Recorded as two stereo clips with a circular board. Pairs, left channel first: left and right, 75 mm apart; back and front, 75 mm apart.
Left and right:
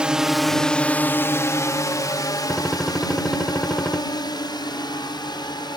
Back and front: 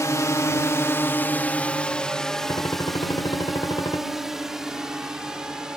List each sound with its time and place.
0.0 s a drone: 160° right; by 5.8 s 80° left
2.5 s a gunshot: 175° left